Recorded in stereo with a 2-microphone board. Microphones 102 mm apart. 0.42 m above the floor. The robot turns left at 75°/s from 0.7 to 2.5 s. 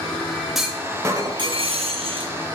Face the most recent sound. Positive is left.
turn(degrees=-140)